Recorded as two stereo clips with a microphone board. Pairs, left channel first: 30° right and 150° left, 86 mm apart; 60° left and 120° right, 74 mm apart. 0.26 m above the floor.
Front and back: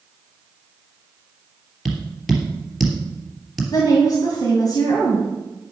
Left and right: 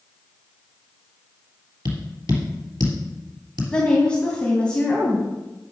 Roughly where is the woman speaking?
Ahead.